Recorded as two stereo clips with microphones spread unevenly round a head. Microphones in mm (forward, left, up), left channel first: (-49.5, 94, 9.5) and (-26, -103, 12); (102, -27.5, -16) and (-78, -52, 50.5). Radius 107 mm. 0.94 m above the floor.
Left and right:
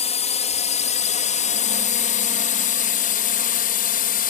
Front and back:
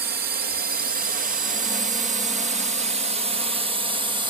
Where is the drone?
140° left; by 4.3 s 110° left.